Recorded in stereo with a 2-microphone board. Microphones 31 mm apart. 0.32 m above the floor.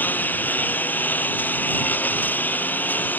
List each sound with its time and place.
0.0 s a lawn mower: 85° left